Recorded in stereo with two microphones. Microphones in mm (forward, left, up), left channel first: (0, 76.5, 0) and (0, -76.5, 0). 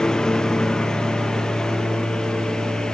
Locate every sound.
0.0 s a lawn mower: 5° left (ahead or behind)